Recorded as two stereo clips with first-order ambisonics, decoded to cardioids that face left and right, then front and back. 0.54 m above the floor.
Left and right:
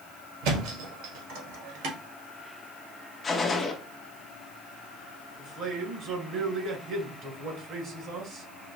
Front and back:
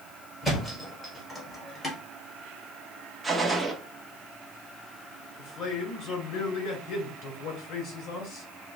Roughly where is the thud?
Right.